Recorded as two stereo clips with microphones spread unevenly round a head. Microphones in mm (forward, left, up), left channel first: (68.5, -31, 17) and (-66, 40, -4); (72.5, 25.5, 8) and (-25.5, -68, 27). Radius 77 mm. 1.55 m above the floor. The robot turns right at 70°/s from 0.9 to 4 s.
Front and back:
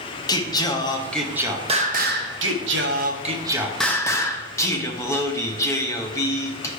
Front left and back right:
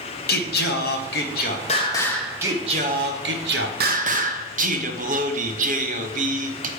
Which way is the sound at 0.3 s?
40° left.